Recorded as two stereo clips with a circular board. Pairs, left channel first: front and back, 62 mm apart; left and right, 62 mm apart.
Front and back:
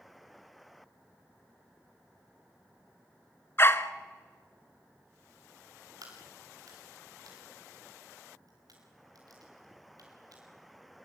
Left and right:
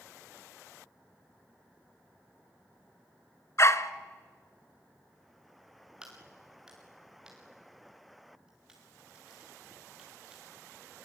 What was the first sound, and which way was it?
A dog barking, 50° left.